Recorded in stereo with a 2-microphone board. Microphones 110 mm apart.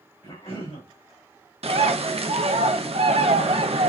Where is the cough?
60° left (ahead or behind), 2 m.